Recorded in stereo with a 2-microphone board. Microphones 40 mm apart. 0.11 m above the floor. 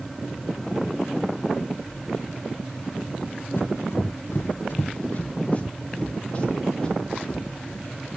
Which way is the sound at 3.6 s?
60° left (ahead or behind).